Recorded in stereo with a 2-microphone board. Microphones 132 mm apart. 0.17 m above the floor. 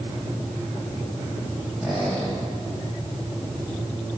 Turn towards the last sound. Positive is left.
turn(degrees=0)  # may be behind; listen again after turning